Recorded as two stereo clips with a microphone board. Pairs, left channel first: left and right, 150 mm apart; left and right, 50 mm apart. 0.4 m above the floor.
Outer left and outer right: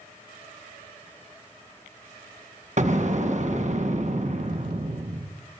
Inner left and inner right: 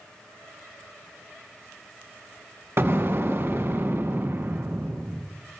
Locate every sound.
2.8 s an explosion: 50° right (ahead or behind), 1.7 m